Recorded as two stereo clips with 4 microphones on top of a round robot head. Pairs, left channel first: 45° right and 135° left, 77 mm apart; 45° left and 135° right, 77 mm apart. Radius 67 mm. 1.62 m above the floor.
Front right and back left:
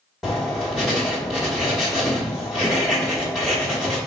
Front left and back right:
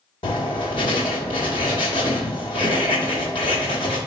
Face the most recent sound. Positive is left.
turn(degrees=45)